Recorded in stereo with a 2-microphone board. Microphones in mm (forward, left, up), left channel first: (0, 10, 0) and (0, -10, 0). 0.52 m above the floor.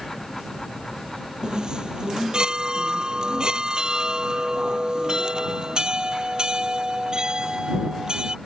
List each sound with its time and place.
1.4 s a chime: 40° right (ahead or behind)